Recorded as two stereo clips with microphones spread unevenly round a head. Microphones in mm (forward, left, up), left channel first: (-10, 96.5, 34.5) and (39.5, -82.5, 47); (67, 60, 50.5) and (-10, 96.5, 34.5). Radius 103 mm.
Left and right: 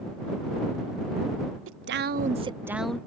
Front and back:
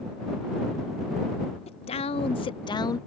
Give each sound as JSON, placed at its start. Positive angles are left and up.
{"t": 1.7, "sound": "a woman speaking", "azimuth_deg": -55}